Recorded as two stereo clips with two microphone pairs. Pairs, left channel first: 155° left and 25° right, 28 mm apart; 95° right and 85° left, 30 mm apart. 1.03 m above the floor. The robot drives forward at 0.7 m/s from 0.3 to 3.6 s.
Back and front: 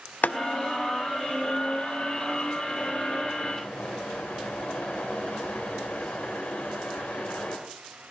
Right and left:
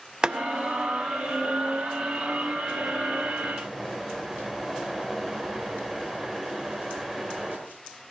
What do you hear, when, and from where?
0.2 s boiling: 145° left, 0.6 m; by 7.6 s 170° left, 3 m